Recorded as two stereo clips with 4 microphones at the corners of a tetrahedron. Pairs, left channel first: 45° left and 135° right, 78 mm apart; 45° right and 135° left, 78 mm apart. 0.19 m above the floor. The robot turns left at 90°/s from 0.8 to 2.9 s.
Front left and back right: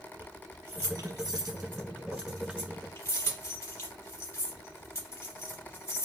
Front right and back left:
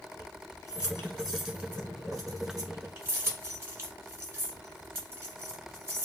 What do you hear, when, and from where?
0.2 s keys jangling: 85° right, 1.1 m; by 6.0 s 90° left, 1.1 m